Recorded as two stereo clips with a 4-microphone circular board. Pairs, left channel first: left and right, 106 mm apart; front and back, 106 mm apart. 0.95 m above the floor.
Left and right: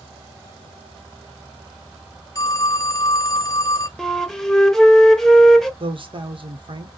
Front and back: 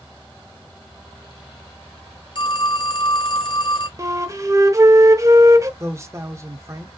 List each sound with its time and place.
2.4 s a phone ringing: 35° left, 0.7 m
4.0 s a flute: 175° left, 0.7 m
5.8 s a man speaking: 120° right, 1.1 m